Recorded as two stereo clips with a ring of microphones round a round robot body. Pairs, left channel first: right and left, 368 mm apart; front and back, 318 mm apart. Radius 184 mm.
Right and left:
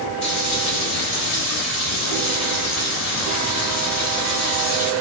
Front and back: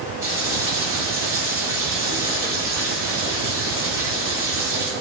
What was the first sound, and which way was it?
Frying, 95° right.